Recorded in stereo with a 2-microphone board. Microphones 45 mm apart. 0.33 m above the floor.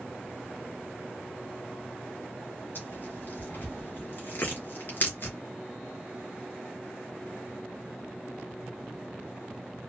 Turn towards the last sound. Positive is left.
turn(degrees=45)  # may be behind; listen again after turning